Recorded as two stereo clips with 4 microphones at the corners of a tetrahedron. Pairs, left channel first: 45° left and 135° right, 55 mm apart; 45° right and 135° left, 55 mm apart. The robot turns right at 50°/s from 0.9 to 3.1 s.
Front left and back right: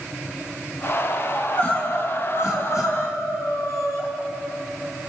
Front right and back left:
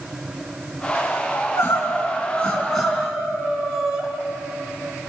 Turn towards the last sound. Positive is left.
turn(degrees=55)